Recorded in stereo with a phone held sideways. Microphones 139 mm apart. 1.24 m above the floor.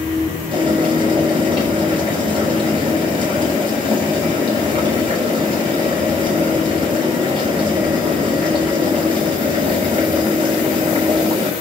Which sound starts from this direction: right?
Boiling, at 0.5 s.